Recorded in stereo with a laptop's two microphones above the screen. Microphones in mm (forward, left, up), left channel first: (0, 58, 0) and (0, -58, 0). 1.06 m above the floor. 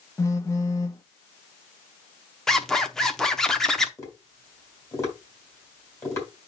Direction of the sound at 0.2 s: 25° left (ahead or behind).